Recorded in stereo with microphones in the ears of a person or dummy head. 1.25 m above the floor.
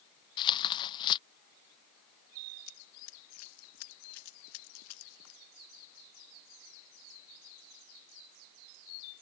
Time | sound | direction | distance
0.4 | tearing paper | 25° left (ahead or behind) | ?
2.7 | running footsteps | 80° left | ?